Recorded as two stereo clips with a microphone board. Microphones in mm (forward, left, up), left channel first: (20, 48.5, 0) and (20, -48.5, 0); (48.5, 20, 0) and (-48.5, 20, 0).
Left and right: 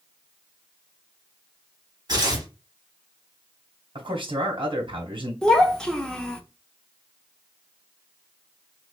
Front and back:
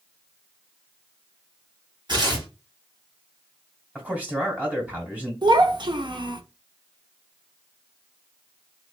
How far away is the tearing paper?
About 1.8 m.